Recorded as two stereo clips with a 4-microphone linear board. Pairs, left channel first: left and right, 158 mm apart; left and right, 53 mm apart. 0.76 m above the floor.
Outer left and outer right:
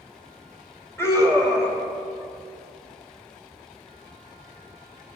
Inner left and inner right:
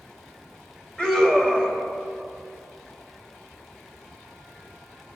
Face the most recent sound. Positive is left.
turn(degrees=15)  # may be behind; listen again after turning